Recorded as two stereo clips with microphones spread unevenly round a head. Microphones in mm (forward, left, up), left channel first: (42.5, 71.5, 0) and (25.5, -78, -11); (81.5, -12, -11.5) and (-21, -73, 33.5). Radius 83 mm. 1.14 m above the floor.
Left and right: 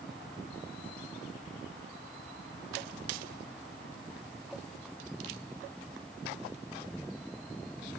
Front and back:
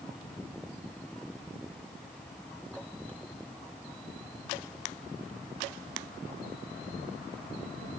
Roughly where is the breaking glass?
I don't hear breaking glass.